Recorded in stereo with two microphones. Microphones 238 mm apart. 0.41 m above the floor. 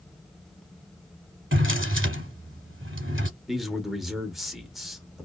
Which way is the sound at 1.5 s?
55° right (ahead or behind).